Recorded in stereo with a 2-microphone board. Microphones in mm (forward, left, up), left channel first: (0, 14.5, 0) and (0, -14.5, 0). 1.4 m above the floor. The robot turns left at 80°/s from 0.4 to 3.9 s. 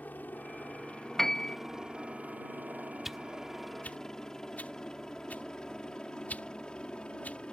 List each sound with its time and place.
0.0 s a helicopter: 75° left (ahead or behind); by 7.5 s 35° left (ahead or behind)
1.2 s a piano: 170° left; by 1.6 s 140° left
3.0 s a whoosh: 10° right (ahead or behind); by 7.4 s 60° left (ahead or behind)